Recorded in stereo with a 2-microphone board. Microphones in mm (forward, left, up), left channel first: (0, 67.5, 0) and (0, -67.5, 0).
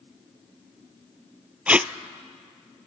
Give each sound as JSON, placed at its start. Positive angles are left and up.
{"t": 1.7, "sound": "tape being pulled", "side_deg": -10, "distance_m": 0.6}